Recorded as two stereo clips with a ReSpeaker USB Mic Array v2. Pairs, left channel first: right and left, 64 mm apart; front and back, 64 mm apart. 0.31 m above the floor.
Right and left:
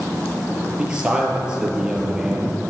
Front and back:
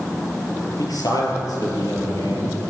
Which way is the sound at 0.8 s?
10° left.